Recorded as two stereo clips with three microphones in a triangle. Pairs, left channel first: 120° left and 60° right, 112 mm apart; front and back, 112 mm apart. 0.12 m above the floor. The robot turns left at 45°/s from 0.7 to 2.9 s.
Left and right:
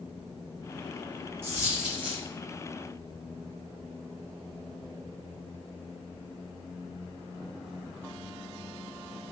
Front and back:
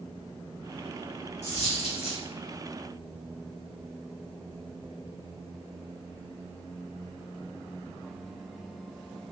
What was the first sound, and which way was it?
A dropped coin, 10° left.